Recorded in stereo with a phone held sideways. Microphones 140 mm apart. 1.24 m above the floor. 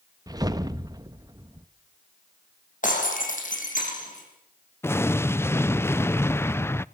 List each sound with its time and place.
0.3 s a whoosh: 25° right (ahead or behind), 1.0 m
2.8 s breaking glass: 70° left (ahead or behind), 6.5 m
4.8 s an explosion: 15° left (ahead or behind), 0.5 m